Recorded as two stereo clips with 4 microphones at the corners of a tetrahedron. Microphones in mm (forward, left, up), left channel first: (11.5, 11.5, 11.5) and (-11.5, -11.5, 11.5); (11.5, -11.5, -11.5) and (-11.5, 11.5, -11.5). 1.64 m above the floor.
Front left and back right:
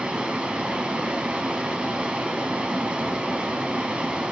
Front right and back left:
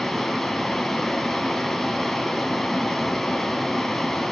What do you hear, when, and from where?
0.0 s running water: 125° right, 1.7 m